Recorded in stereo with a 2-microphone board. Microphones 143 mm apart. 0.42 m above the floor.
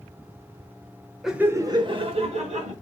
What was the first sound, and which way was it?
Laughter, centre (ahead or behind).